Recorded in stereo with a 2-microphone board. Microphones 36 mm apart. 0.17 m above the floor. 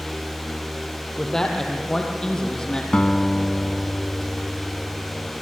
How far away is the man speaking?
About 4.5 m.